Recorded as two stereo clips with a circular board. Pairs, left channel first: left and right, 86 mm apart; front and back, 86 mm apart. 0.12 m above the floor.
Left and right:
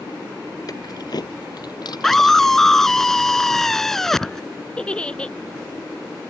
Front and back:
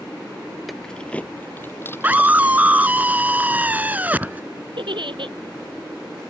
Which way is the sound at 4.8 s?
170° left.